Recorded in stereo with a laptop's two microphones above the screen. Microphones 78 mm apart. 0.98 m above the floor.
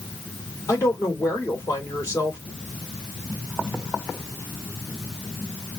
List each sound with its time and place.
0.7 s a woman speaking: 45° left (ahead or behind), 3 m